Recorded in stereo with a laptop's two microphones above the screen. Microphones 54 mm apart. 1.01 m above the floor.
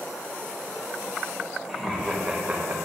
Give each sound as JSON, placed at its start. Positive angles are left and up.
{"t": 1.7, "sound": "laughter", "side_deg": 5, "distance_m": 1.5}